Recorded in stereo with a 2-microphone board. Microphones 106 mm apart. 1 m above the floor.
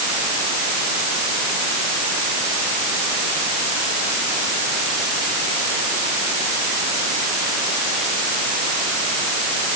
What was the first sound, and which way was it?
Only background noise.